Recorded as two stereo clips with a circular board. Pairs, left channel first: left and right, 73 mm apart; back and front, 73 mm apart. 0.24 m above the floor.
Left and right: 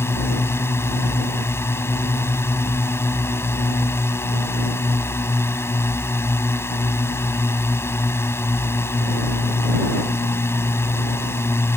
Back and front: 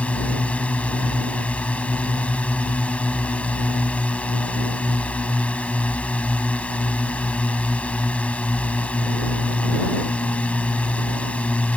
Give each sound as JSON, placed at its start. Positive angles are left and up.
{"t": 0.0, "sound": "a drone", "azimuth_deg": 120}